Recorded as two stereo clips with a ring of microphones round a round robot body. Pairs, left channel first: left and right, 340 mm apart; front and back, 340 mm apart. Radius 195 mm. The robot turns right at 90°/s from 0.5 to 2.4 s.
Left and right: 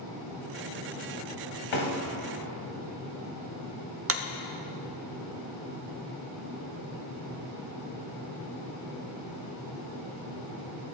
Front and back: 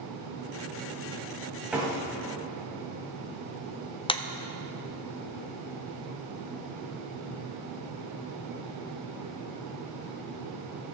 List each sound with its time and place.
1.7 s a door slam: 95° left, 2.5 m; by 4.0 s 155° left, 2.5 m
4.1 s a clap: 70° right, 0.7 m